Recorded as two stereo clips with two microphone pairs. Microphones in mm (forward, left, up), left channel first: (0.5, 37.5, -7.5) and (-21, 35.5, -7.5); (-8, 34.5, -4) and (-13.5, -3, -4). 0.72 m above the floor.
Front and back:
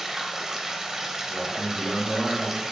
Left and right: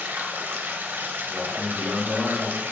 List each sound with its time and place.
0.0 s running water: 115° right, 1.0 m
1.3 s a man speaking: 135° right, 3.5 m